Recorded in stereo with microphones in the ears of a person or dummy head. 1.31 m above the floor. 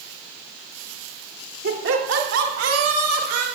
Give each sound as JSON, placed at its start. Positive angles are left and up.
{"t": 1.6, "sound": "laughter", "side_deg": -55, "distance_m": 2.5}